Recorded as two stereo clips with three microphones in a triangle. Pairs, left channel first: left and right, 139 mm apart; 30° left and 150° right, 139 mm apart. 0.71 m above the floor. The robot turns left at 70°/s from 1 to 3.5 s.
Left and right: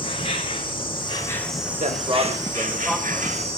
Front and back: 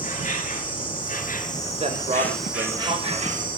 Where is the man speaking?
110° right, 4 m; by 3.5 s 135° left, 4 m.